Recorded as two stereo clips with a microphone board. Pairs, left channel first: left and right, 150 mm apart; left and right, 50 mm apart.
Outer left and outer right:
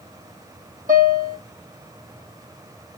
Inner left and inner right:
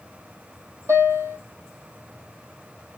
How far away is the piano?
About 3 m.